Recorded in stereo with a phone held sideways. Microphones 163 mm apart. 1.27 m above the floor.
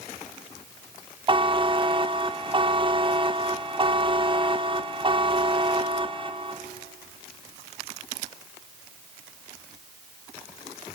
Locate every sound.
1.3 s a buzzer: 30° right (ahead or behind), 0.7 m